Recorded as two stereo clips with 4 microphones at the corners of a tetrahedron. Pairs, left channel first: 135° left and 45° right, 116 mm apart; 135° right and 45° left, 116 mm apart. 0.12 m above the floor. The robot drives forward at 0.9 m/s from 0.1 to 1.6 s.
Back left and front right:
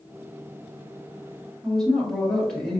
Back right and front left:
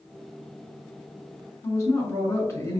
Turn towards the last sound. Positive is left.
turn(degrees=-145)